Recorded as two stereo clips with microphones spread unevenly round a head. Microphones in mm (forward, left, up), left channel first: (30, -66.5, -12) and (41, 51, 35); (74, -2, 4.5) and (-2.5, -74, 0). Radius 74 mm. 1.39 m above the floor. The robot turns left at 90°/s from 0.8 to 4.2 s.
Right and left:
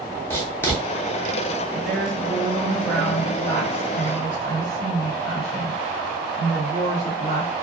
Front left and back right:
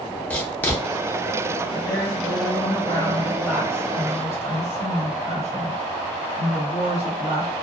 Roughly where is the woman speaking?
Left.